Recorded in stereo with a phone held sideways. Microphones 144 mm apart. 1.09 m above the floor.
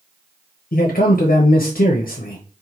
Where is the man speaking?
80° left, 0.5 m.